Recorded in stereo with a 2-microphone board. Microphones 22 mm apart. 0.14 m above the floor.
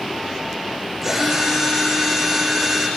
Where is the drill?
10° right (ahead or behind), 9 m.